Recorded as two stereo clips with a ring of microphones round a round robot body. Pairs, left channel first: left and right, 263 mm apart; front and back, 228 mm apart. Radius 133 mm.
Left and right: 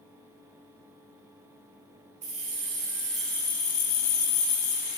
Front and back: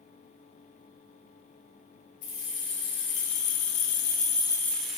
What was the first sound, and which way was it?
Keys jangling, 20° right.